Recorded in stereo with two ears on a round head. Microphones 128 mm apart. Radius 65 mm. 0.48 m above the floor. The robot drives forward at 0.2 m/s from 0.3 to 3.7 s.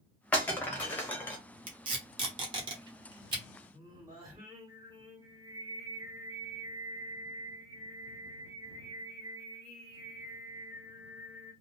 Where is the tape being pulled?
35° right (ahead or behind), 1.1 m; by 3.4 s 30° right (ahead or behind), 1.2 m.